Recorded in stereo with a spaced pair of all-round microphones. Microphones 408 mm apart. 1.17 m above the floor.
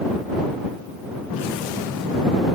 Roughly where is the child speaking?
I don't hear a child speaking.